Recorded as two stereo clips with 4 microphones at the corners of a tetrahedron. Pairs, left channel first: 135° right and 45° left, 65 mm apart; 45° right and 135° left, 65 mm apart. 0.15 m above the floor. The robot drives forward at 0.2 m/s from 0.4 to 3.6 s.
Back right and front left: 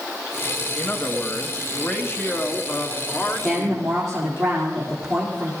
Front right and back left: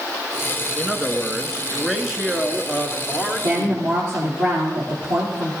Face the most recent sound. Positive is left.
turn(degrees=140)